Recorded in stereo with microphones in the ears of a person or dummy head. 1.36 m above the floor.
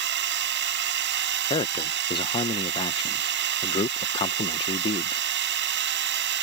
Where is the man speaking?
30° left (ahead or behind).